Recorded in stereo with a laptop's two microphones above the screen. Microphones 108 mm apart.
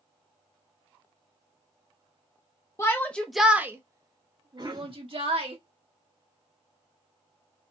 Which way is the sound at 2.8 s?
25° left (ahead or behind).